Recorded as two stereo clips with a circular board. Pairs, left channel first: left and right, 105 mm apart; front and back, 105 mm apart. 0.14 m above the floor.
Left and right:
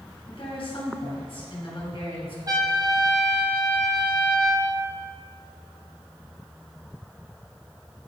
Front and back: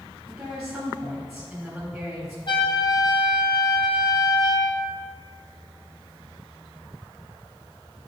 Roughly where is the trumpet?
Ahead right.